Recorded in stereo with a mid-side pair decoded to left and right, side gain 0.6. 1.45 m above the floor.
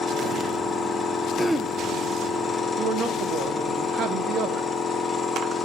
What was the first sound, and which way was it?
A machine running, 20° left.